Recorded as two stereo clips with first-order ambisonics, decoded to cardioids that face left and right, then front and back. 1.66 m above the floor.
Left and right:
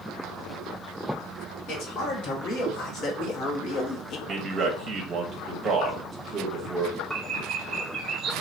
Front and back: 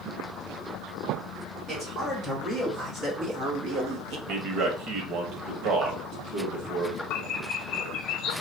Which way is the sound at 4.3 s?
150° right.